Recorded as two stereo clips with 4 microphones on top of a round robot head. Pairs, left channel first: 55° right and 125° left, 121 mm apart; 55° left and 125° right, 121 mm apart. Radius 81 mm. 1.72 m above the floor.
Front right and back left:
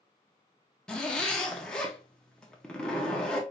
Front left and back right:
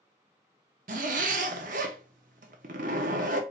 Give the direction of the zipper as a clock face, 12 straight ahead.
5 o'clock.